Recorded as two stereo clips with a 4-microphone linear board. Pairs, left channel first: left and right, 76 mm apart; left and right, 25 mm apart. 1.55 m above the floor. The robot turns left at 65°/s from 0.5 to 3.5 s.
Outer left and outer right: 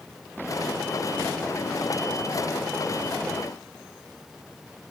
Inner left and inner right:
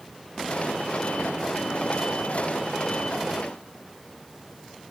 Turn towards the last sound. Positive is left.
No sound to turn to.